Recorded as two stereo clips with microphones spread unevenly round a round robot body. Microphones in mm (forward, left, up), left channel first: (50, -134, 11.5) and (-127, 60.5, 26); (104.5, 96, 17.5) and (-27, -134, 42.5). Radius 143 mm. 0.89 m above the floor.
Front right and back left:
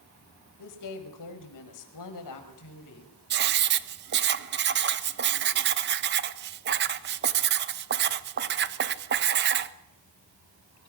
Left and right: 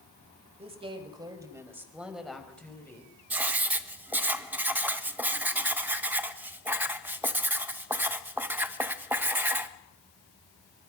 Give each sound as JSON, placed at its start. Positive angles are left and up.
{"t": 0.6, "sound": "a woman speaking", "azimuth_deg": -50, "distance_m": 5.0}
{"t": 3.3, "sound": "writing", "azimuth_deg": 155, "distance_m": 1.0}